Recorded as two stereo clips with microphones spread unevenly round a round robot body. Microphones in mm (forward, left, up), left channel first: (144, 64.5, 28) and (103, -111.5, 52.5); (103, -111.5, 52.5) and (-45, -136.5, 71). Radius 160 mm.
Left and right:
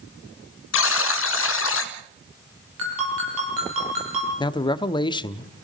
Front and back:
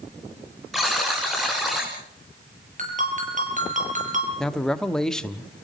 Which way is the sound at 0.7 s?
100° left.